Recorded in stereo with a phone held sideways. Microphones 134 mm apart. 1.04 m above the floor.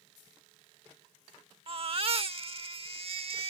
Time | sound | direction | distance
1.7 | a baby crying | 45° right (ahead or behind) | ?